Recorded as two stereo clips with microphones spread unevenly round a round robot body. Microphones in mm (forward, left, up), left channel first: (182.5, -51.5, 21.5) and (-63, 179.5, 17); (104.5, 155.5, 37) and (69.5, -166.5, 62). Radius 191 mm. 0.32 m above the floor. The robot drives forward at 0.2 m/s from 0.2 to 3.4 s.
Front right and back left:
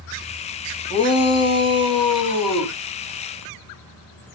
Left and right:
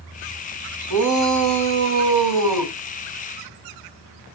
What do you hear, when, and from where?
0.9 s a shout: 115° right, 3 m; by 2.7 s 120° right, 3 m